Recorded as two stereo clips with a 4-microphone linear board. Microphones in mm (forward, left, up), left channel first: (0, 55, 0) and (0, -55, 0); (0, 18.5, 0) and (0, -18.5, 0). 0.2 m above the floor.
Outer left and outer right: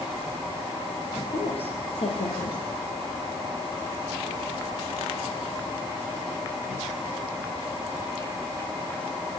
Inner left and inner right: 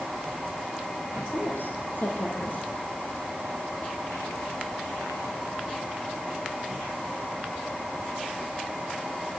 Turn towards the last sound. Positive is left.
turn(degrees=65)  # may be behind; listen again after turning